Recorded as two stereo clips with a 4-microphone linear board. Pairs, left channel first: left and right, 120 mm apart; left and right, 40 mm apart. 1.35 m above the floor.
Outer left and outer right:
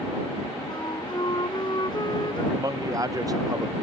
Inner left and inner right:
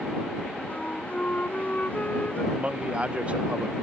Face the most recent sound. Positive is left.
turn(degrees=-30)  # may be behind; listen again after turning